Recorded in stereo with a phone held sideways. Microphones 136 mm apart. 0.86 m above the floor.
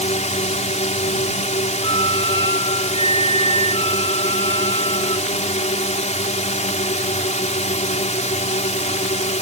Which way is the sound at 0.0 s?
55° left (ahead or behind).